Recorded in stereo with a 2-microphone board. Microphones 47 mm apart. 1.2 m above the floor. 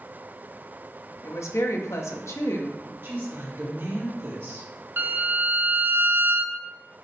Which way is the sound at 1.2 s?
80° left.